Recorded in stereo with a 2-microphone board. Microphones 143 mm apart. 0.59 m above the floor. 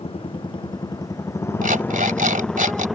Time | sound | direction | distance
0.0 | a motorcycle | 40° left (ahead or behind) | ?
1.6 | an alarm clock | 70° right (ahead or behind) | ?